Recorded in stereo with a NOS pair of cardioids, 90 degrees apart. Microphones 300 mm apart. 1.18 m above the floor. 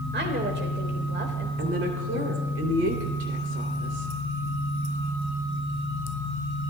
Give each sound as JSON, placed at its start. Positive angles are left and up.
{"t": 0.1, "sound": "a woman speaking", "azimuth_deg": -35, "distance_m": 3.5}
{"t": 1.6, "sound": "a woman speaking", "azimuth_deg": -55, "distance_m": 3.0}